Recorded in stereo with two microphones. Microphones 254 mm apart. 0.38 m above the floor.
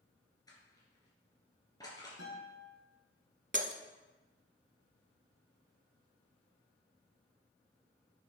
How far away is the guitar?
About 3.5 m.